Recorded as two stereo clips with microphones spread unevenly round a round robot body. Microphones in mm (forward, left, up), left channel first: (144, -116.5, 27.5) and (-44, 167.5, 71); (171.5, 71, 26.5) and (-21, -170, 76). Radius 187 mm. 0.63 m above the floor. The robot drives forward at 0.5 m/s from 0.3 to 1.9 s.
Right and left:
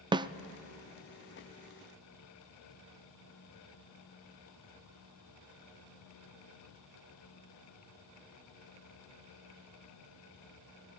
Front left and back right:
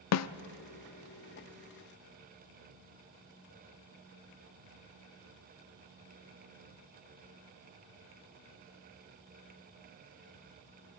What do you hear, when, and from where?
0.1 s a snare drum: 45° left, 0.6 m